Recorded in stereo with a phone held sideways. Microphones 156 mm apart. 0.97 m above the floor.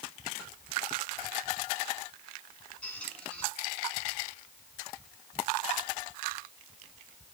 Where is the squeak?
5° left (ahead or behind), 5 m.